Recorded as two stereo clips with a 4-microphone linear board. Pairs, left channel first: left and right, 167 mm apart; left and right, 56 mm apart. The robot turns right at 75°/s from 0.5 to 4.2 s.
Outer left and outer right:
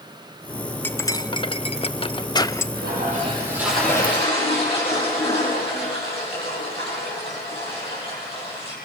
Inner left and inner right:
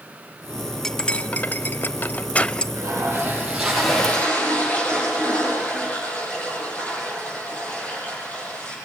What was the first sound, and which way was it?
Cutlery clinking, 10° left (ahead or behind).